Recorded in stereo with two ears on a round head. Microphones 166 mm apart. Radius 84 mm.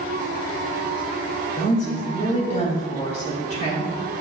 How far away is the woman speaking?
About 2.5 m.